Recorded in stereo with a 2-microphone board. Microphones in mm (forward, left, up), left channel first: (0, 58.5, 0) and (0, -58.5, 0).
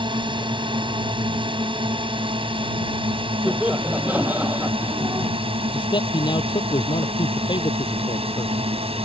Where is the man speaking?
45° left (ahead or behind).